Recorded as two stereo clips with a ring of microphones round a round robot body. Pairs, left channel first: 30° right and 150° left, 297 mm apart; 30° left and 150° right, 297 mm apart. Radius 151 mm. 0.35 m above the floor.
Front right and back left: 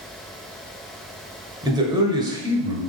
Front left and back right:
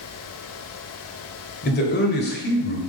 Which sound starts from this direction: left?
A man speaking, at 1.6 s.